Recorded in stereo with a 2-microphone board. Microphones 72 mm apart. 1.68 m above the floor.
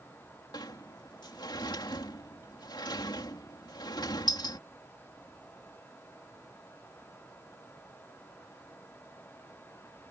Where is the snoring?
No snoring in this recording.